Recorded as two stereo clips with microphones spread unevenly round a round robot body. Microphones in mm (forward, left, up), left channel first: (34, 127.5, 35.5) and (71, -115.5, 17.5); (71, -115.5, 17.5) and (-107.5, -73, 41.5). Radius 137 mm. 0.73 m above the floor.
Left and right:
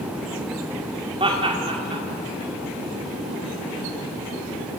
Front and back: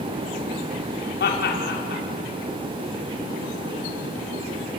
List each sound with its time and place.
1.2 s laughter: 15° right, 2 m